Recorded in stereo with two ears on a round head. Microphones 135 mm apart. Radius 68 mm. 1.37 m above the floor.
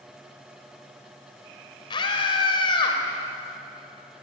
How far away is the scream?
About 5 m.